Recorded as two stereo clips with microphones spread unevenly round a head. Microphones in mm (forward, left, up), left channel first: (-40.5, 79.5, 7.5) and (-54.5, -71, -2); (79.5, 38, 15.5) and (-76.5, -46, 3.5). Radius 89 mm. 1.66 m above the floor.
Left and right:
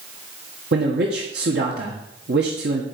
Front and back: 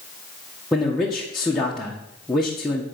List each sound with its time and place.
0.7 s a man speaking: 60° right, 1.6 m